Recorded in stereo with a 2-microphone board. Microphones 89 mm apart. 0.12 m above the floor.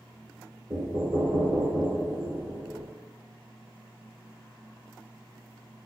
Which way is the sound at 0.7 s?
30° right (ahead or behind).